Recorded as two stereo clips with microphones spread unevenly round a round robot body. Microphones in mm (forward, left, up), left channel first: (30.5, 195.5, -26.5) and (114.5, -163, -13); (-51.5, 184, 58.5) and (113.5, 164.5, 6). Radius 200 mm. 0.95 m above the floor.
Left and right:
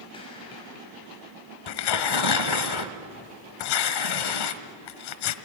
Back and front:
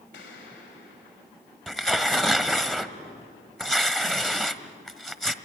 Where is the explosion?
Straight behind, 5.5 m.